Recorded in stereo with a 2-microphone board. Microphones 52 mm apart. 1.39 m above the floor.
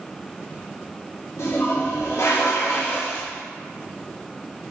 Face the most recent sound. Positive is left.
turn(degrees=65)  # may be behind; listen again after turning